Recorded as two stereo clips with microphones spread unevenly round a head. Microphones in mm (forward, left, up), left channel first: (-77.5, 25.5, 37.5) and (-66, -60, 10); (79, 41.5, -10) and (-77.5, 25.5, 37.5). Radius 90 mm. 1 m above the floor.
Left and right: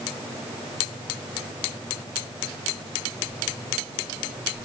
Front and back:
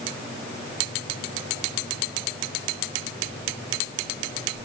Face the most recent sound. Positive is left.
No sound to turn to.